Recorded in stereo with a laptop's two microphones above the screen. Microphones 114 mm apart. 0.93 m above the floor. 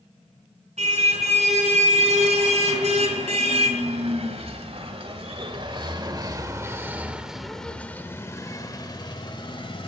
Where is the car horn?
80° right, 4 m; by 9.9 s 50° left (ahead or behind), 1.9 m.